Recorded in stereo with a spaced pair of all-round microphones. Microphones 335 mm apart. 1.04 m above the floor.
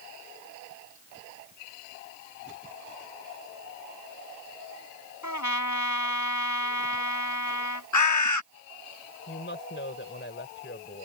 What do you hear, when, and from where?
5.2 s a trumpet: 65° left (ahead or behind)
7.9 s a bird: 65° left (ahead or behind)
9.3 s a woman speaking: 35° left (ahead or behind)